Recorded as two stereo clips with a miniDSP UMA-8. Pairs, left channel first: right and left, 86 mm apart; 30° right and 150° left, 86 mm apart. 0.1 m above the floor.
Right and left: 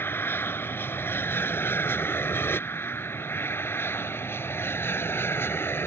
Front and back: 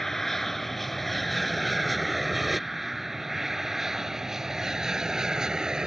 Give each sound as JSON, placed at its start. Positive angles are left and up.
{"t": 0.0, "sound": "an aircraft", "azimuth_deg": -115}